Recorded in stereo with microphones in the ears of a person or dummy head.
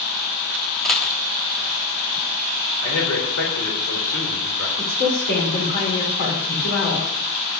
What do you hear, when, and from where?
0.8 s a dropped coin: 5° left (ahead or behind), 1.2 m
2.8 s a man speaking: 75° left (ahead or behind), 3.5 m
4.8 s a woman speaking: 50° left (ahead or behind), 3.5 m